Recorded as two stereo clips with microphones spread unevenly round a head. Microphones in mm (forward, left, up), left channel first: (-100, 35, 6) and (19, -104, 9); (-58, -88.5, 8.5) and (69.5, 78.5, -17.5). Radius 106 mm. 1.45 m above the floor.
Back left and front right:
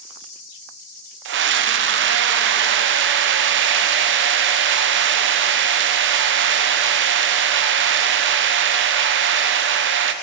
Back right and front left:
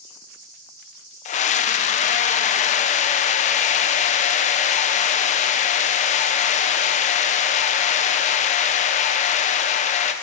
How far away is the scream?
About 0.9 m.